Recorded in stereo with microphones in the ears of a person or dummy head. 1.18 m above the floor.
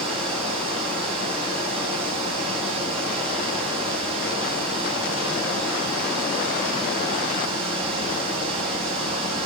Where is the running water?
35° right (ahead or behind), 5 m.